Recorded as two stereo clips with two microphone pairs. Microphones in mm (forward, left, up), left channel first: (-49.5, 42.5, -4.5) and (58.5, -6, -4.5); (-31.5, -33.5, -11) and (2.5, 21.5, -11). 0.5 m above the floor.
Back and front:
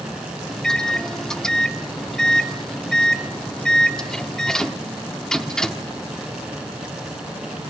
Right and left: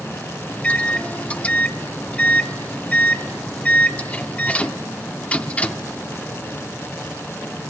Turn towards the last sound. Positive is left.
turn(degrees=-130)